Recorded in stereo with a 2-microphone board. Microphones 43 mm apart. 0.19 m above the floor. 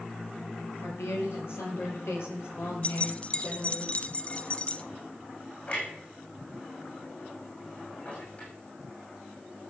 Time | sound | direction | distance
0.8 | a woman speaking | 70° left (ahead or behind) | 5 m
2.8 | keys jangling | 30° left (ahead or behind) | 0.9 m
5.7 | a clunk | 40° left (ahead or behind) | 9.5 m